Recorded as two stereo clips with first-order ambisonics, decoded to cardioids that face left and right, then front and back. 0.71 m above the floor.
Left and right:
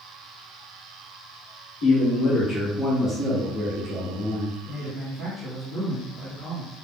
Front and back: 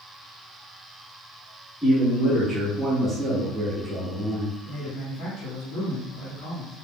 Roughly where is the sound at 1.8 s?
Left.